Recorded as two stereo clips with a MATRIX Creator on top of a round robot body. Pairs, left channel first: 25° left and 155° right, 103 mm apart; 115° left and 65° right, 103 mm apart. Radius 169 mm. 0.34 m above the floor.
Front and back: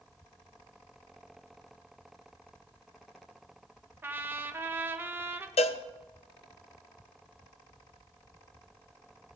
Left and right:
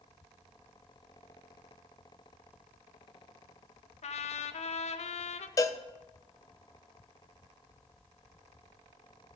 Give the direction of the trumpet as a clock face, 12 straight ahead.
8 o'clock.